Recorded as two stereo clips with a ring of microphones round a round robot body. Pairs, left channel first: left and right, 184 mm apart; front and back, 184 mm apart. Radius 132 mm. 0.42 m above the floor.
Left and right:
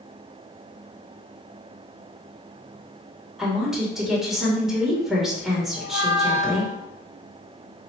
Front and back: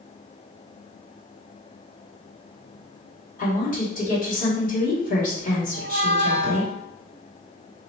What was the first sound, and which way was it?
A woman speaking, 5° right.